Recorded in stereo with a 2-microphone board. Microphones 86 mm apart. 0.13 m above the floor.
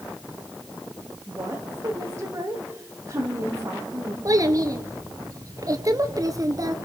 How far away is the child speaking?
About 1.8 m.